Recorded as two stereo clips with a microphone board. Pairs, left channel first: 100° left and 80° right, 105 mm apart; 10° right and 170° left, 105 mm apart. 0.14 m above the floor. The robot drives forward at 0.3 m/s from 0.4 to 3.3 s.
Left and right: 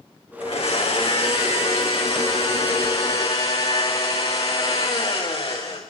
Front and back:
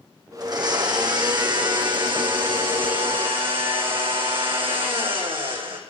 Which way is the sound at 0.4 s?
125° left.